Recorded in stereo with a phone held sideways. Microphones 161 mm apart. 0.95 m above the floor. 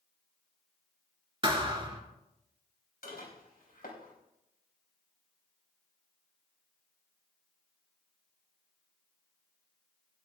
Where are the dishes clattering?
70° left (ahead or behind), 3.5 m.